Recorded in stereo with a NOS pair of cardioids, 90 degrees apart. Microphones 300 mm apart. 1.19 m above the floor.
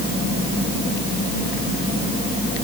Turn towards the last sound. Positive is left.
No sound to turn to.